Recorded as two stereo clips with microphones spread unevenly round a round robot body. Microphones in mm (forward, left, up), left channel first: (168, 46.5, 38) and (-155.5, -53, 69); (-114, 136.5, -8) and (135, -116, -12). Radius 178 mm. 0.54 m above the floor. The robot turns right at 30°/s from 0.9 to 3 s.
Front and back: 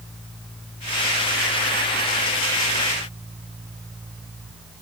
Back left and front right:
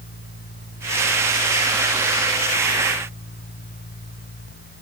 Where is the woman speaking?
No woman speaking in this recording.